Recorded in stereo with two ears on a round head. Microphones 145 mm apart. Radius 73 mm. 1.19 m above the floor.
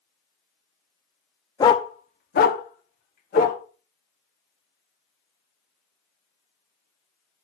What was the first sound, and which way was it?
A dog barking, 20° left (ahead or behind).